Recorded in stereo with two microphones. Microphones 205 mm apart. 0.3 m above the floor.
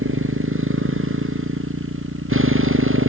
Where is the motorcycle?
80° right.